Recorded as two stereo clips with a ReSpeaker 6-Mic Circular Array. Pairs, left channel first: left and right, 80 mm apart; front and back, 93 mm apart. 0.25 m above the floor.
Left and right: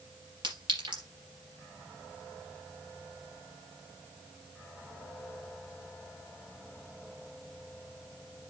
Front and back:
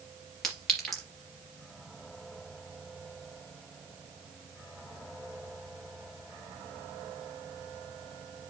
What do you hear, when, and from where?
0.4 s a clink: 85° right, 3.5 m